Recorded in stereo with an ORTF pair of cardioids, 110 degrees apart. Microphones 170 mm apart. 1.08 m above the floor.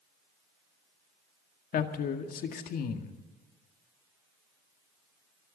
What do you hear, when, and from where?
1.7 s a man speaking: 55° left, 1.9 m